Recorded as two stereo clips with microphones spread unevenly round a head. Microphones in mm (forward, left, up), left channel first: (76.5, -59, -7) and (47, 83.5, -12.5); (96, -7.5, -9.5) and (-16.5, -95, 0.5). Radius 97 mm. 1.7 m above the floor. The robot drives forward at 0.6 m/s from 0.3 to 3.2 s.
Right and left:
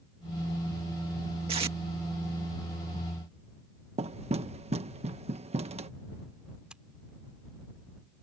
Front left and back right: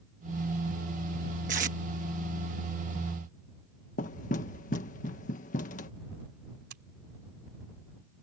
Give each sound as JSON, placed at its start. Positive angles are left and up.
{"t": 1.5, "sound": "tape being pulled", "azimuth_deg": 165}
{"t": 4.0, "sound": "knocking", "azimuth_deg": 65}
{"t": 6.7, "sound": "scissors", "azimuth_deg": -170}